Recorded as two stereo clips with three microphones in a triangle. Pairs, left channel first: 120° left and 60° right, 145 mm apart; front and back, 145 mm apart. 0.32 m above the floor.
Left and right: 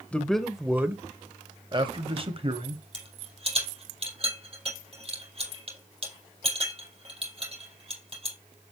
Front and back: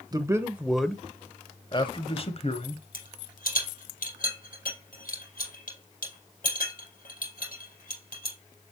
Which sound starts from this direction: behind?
A man speaking, at 0.1 s.